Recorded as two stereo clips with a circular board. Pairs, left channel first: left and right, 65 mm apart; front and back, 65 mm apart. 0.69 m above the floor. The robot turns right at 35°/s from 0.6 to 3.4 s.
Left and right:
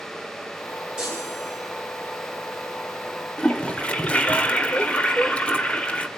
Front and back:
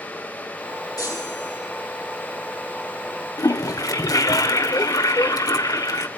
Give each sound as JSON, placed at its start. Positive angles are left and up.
{"t": 1.0, "sound": "a chime", "azimuth_deg": -15, "distance_m": 9.5}
{"t": 3.4, "sound": "a toilet flushing", "azimuth_deg": 20, "distance_m": 1.1}